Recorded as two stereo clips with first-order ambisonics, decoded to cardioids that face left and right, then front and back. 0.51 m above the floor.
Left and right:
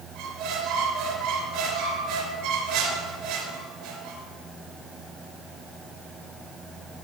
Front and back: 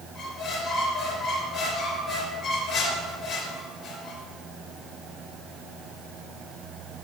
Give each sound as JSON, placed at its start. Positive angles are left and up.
{"t": 0.1, "sound": "a squeak", "azimuth_deg": -75, "distance_m": 3.0}